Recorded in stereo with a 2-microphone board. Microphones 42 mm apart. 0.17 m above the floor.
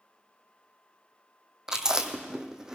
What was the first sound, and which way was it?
Chewing, 15° right (ahead or behind).